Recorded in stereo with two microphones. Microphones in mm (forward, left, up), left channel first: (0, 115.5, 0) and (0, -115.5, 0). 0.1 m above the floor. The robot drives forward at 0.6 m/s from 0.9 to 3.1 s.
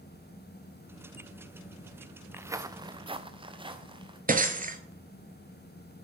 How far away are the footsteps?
About 0.6 m.